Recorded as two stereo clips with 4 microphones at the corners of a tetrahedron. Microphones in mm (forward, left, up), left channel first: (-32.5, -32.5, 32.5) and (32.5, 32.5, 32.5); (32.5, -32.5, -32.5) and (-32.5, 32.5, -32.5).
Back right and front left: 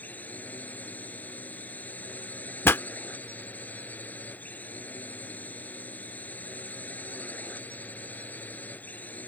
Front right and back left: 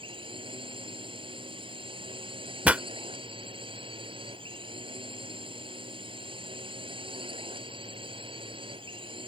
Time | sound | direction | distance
0.0 | a drone | 150° left | ?
2.6 | a pop | 170° right | ?